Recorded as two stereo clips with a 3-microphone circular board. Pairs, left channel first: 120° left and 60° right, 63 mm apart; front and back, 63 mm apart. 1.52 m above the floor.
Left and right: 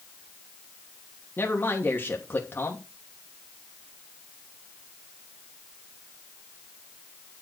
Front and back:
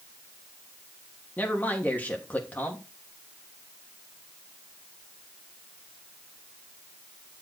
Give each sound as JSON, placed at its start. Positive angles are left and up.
{"t": 1.4, "sound": "a man speaking", "azimuth_deg": 65, "distance_m": 3.0}